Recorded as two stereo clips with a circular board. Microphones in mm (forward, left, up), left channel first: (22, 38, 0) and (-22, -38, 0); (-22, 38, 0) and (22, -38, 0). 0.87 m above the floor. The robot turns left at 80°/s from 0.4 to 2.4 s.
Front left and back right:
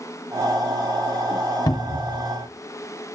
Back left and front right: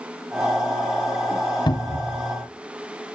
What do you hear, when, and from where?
1.7 s a cupboard door: 100° left, 0.6 m; by 2.2 s 55° left, 0.6 m